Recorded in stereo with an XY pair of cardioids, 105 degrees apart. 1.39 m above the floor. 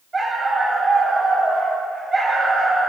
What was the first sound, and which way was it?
A dog barking, 25° right.